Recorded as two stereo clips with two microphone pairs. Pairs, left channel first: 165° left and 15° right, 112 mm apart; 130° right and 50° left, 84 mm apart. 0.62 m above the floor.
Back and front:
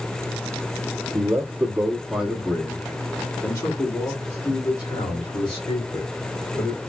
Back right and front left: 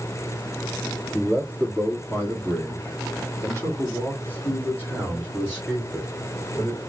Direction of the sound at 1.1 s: 75° right.